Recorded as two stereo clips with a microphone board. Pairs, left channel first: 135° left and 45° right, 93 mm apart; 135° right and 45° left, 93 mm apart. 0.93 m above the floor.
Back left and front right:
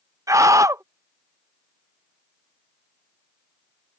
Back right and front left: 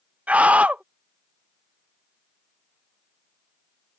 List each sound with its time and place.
0.3 s a scream: 20° right